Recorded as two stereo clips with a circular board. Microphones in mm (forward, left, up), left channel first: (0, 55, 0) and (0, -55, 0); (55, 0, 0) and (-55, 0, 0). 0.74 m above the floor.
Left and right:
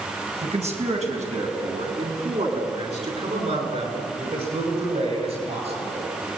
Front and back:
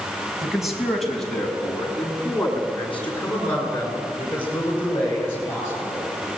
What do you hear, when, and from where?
0.4 s a man speaking: 95° right, 4.5 m; by 6.1 s 70° right, 11.5 m